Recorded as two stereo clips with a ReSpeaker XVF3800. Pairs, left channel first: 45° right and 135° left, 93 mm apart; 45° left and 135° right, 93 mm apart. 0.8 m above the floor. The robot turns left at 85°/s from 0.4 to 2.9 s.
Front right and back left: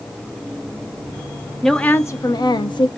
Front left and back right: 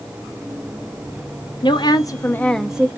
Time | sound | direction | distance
1.6 | a woman speaking | 45° left | 0.6 m